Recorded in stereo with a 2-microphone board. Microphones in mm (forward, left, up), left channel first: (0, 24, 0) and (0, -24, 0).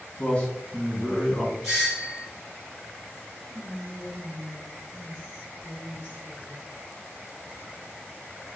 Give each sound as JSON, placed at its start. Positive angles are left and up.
{"t": 0.2, "sound": "a man speaking", "side_deg": 25, "distance_m": 1.2}
{"t": 1.6, "sound": "a doorbell", "side_deg": -5, "distance_m": 1.4}
{"t": 3.5, "sound": "whispering", "side_deg": -20, "distance_m": 1.4}